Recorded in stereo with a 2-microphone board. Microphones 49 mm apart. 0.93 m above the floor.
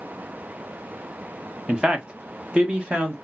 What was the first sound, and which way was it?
A man speaking, 20° right (ahead or behind).